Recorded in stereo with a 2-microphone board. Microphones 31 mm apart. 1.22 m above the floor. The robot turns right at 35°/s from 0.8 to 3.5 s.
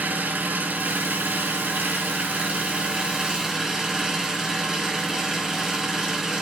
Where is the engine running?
110° right, 4 m; by 6.4 s 15° right, 4 m.